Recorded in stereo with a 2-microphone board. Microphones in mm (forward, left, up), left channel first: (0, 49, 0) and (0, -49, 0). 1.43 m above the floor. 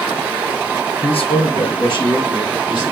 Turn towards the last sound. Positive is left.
turn(degrees=50)  # may be behind; listen again after turning